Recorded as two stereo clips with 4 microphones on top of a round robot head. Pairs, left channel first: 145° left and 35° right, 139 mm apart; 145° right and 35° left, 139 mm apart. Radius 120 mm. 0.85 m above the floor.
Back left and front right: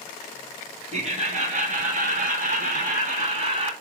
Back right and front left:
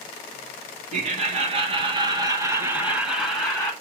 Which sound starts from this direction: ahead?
Laughter, at 0.9 s.